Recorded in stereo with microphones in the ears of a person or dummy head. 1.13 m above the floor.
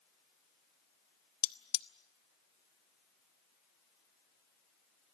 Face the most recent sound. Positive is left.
turn(degrees=50)  # may be behind; listen again after turning